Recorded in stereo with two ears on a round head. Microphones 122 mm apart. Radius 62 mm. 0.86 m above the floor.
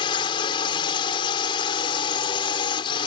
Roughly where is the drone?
Left.